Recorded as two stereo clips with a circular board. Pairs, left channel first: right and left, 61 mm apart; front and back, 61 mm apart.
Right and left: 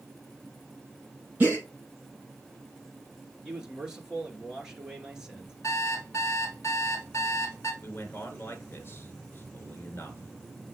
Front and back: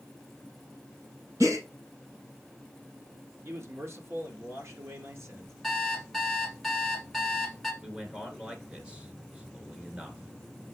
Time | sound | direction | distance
1.4 | a gasp | 150° left | 4.5 m
3.4 | a man speaking | 165° left | 1.5 m
5.6 | an alarm clock | 90° right | 1.5 m
7.8 | a man speaking | 115° right | 1.6 m